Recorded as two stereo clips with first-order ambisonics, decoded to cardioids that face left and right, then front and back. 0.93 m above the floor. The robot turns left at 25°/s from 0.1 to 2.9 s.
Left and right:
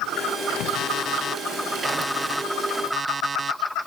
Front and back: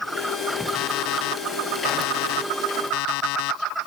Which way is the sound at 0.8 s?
35° left.